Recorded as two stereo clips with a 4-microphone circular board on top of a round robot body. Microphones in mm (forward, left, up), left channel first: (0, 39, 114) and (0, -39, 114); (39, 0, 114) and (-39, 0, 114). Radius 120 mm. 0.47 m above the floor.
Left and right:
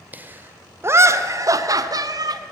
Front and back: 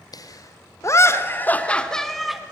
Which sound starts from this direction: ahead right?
Laughter, at 0.1 s.